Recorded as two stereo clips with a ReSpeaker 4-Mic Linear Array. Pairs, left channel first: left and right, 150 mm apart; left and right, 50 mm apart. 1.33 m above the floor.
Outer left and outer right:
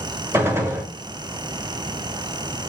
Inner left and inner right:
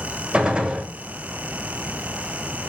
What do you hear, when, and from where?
0.3 s a gunshot: 15° right (ahead or behind), 1.1 m